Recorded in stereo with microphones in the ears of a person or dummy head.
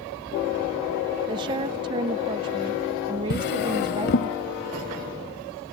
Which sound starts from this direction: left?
A drawer, at 3.3 s.